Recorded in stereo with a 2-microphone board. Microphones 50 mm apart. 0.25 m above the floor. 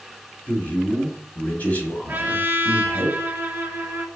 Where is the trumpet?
35° right (ahead or behind), 0.7 m.